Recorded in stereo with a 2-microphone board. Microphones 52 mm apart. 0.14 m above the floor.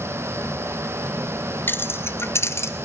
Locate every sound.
1.7 s keys jangling: 40° left (ahead or behind), 1.1 m; by 2.7 s 55° left (ahead or behind), 1.9 m